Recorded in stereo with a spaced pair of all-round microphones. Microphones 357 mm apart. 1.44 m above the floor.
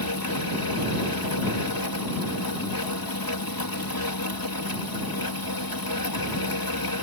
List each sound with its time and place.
0.0 s a fan: 70° left (ahead or behind)